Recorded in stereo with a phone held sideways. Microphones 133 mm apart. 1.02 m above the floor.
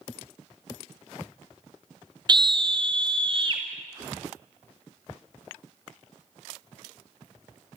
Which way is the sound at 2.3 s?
35° right (ahead or behind).